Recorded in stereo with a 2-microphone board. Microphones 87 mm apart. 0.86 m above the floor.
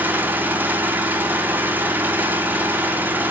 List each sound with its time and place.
0.0 s an engine running: 20° right (ahead or behind), 2 m